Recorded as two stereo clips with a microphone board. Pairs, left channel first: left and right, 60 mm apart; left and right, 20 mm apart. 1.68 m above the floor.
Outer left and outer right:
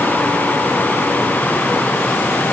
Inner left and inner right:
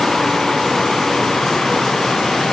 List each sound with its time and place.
Only background noise.